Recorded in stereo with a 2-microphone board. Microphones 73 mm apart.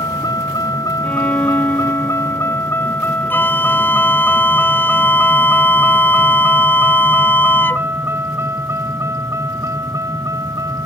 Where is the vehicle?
60° left (ahead or behind); by 10.8 s 45° right (ahead or behind).